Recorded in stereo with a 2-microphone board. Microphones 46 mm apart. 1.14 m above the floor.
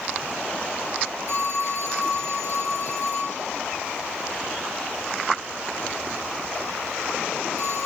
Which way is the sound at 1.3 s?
60° left (ahead or behind).